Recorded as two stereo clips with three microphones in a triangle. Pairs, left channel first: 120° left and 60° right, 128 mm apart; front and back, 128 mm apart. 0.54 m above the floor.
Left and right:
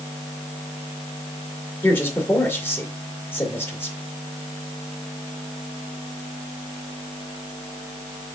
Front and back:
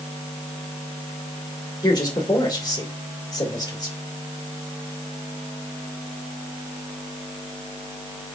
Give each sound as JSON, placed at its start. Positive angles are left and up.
{"t": 1.8, "sound": "a man speaking", "azimuth_deg": 50, "distance_m": 2.0}